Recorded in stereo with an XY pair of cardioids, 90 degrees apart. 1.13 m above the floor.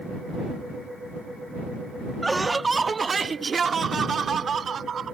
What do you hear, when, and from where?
2.2 s laughter: 15° right; by 5.2 s 55° right